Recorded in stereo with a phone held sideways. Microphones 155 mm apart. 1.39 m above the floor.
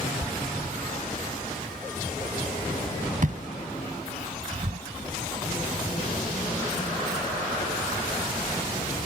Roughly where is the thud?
Right.